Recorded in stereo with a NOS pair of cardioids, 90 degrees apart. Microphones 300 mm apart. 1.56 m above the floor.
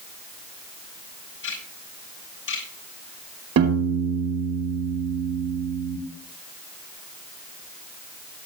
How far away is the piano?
About 5 m.